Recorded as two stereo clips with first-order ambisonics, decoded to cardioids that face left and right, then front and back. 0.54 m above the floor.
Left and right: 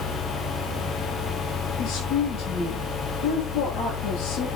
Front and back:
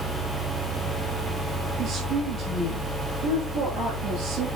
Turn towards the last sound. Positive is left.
turn(degrees=125)